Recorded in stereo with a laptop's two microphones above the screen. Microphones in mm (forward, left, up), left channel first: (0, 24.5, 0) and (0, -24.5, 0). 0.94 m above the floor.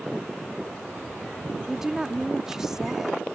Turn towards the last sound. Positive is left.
turn(degrees=-10)  # may be behind; listen again after turning